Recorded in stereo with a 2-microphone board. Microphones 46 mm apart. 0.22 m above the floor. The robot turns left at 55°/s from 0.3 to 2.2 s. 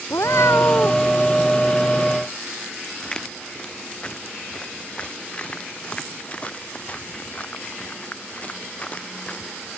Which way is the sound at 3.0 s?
15° left (ahead or behind).